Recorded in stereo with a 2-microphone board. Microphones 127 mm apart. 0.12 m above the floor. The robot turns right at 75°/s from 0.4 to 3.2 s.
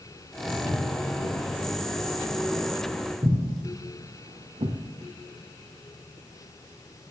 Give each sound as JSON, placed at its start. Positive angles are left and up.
{"t": 0.5, "sound": "footsteps", "side_deg": 0, "distance_m": 5.0}